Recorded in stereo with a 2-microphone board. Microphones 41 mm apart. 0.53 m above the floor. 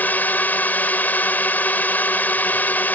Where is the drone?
45° left (ahead or behind).